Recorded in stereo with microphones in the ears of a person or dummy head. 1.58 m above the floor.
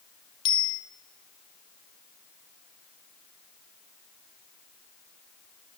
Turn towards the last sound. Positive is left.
turn(degrees=25)  # may be behind; listen again after turning